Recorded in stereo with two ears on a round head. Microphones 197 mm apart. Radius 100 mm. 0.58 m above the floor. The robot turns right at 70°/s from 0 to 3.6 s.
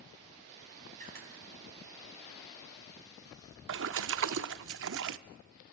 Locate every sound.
1.0 s a camera shutter: 35° right (ahead or behind), 3.5 m; by 1.3 s 60° right (ahead or behind), 3.5 m
3.7 s a splash: 60° right (ahead or behind), 0.5 m